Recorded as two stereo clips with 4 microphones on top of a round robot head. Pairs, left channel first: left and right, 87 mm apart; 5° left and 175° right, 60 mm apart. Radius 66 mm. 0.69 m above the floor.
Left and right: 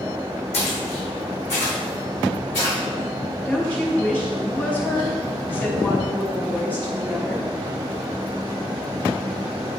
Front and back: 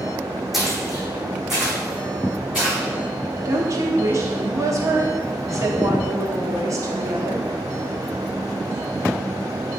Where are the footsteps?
95° left, 2 m; by 2.8 s 105° left, 4 m.